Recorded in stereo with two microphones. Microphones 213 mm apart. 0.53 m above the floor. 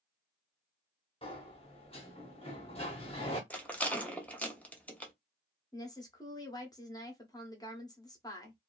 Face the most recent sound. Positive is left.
turn(degrees=20)  # may be behind; listen again after turning